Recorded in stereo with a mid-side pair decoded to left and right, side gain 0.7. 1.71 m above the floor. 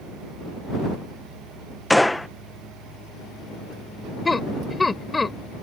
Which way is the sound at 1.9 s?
5° left.